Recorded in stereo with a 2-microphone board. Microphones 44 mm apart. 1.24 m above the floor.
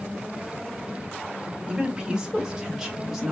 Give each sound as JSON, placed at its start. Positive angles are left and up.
{"t": 1.7, "sound": "a woman speaking", "side_deg": -10, "distance_m": 3.0}